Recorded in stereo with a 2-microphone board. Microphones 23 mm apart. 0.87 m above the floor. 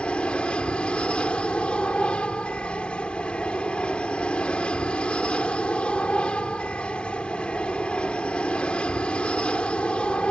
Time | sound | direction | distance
0.0 | an aircraft | 55° left (ahead or behind) | ?